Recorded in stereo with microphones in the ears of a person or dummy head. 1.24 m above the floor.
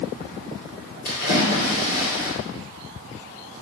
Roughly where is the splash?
Left.